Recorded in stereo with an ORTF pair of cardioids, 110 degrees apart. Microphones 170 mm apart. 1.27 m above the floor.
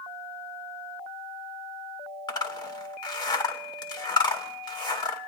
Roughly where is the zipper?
Ahead left.